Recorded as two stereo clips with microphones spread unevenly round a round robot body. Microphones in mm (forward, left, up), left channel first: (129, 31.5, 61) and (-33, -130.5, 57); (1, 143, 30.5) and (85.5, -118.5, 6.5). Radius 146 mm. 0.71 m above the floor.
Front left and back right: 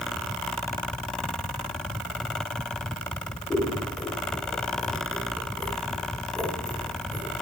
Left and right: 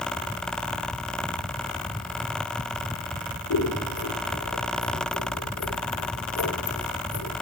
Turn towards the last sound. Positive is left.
turn(degrees=130)